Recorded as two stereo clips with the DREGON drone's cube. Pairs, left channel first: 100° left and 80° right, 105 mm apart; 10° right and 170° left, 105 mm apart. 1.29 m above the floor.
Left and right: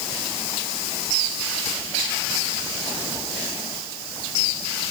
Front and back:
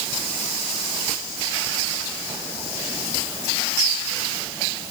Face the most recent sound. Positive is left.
No sound to turn to.